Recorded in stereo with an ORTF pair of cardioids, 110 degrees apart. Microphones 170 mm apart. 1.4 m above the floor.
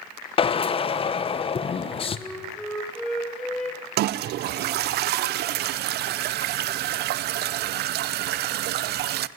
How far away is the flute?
About 5.5 m.